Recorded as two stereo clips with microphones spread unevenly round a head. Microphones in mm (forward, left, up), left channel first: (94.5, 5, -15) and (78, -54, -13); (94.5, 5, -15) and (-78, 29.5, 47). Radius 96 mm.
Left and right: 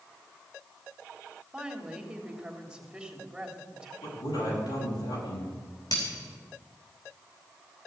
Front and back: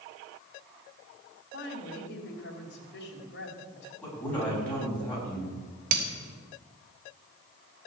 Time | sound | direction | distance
1.5 | a woman speaking | 25° right | 3.5 m
4.0 | a man speaking | 75° left | 8.5 m
5.9 | breaking glass | 125° left | 3.5 m